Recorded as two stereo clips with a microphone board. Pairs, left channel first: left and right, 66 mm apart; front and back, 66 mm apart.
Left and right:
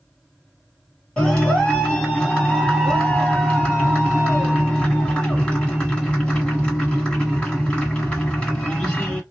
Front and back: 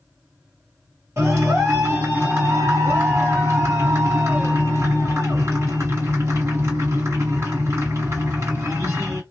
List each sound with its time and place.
1.2 s a clap: 155° left, 1.8 m